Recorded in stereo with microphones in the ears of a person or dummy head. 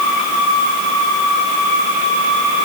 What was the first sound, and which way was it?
Only background noise.